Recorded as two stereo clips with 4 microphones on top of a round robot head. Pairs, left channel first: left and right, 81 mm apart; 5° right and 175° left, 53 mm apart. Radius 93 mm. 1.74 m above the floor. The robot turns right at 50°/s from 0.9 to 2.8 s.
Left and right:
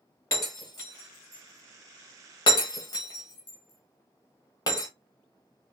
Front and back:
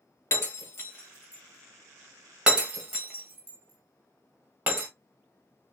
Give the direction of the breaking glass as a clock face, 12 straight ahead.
11 o'clock.